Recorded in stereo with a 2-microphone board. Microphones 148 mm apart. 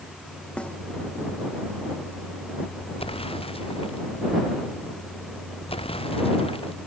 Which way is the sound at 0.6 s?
10° left (ahead or behind).